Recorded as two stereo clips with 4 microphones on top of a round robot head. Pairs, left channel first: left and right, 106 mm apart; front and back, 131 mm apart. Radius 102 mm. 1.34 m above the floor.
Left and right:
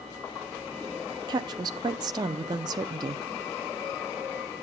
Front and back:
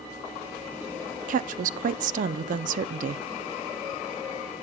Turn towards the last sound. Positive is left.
turn(degrees=-150)